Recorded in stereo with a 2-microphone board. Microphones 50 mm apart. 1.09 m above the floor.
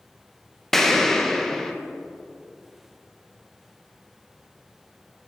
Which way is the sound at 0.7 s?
10° left (ahead or behind).